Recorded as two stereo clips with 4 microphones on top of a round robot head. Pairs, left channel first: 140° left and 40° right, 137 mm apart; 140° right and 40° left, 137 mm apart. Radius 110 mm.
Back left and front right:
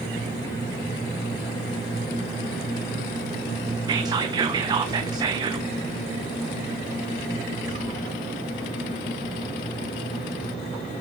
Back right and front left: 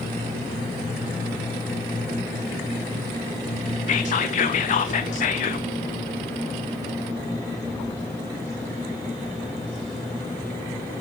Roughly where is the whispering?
Right.